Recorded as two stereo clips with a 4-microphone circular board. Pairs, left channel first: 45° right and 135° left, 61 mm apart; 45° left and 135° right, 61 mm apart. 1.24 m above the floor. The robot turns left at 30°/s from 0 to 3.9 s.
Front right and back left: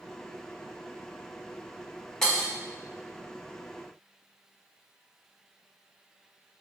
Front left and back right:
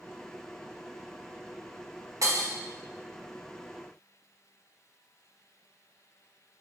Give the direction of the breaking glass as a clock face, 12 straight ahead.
4 o'clock.